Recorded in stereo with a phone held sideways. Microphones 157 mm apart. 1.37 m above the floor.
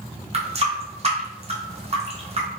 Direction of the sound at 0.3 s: 40° right (ahead or behind).